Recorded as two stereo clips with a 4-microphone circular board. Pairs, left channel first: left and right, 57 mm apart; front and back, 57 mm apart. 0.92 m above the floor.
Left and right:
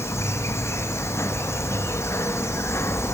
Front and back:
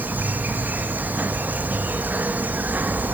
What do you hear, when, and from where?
0.0 s an insect: 120° left, 0.9 m